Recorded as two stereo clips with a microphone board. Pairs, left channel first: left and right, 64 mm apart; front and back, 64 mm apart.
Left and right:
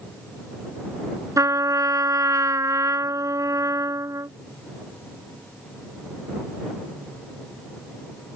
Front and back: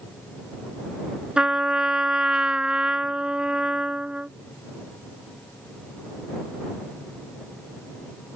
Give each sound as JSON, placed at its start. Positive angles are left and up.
{"t": 1.4, "sound": "a trumpet", "azimuth_deg": -105}